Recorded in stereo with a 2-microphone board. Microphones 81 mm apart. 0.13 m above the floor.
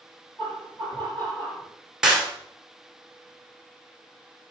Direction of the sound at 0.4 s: 25° left (ahead or behind).